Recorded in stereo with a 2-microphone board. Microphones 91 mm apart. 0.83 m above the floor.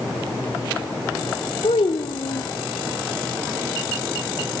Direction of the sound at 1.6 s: 85° left.